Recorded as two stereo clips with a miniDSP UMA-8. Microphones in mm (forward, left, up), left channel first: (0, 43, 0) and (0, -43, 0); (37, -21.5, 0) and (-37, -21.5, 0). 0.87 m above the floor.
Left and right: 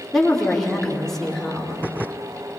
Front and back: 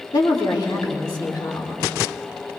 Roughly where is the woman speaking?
Ahead.